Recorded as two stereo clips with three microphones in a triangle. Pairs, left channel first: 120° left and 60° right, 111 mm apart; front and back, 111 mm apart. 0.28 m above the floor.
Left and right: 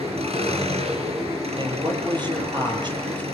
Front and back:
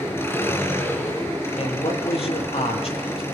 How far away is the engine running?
About 5 m.